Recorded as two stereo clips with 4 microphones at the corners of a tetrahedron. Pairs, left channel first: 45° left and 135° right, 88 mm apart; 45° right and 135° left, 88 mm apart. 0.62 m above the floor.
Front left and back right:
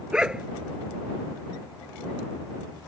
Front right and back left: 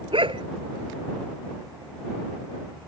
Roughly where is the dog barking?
Behind left.